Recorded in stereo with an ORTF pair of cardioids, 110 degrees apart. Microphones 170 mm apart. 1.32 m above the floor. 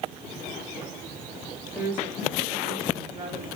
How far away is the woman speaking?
About 2.5 m.